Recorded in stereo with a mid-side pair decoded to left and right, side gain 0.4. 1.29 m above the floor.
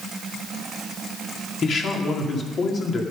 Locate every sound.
1.6 s a man speaking: 60° left, 2.5 m